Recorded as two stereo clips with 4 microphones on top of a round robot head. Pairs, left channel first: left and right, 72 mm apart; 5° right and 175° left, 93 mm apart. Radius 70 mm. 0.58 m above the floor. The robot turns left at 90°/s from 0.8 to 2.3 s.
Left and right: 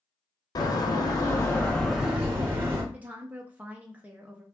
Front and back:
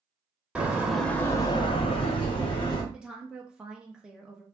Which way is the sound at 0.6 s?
95° left.